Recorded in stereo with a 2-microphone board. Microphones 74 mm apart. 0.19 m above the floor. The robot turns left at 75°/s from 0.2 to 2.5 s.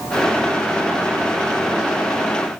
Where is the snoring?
No snoring in this recording.